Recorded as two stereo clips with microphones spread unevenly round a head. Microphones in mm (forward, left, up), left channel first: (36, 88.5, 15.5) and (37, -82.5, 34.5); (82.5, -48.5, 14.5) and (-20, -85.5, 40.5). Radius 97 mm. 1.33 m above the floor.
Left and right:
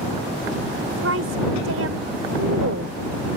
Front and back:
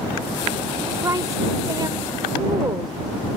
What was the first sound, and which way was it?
A woman speaking, 100° right.